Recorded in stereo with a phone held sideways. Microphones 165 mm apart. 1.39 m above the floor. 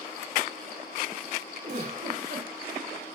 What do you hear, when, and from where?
1.6 s a giggle: 65° right (ahead or behind), 2.5 m